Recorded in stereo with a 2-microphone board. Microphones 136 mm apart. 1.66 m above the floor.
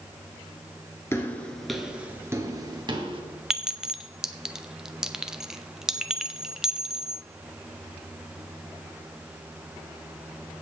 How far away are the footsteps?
About 1.7 m.